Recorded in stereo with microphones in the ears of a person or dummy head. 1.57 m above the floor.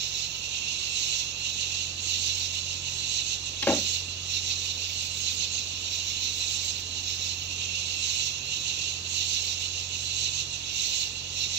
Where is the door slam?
10° left (ahead or behind).